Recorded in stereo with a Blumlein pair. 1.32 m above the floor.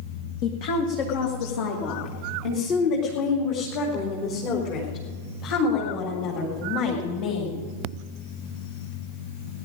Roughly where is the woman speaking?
Ahead left.